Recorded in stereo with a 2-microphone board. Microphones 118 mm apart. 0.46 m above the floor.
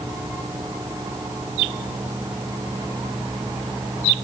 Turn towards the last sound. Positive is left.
No sound to turn to.